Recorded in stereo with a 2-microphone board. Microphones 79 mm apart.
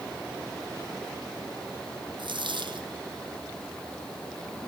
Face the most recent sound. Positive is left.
turn(degrees=-80)